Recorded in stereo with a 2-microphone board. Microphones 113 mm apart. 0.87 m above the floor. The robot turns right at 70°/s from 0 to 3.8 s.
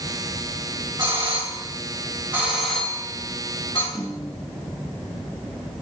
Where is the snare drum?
30° left (ahead or behind), 3 m.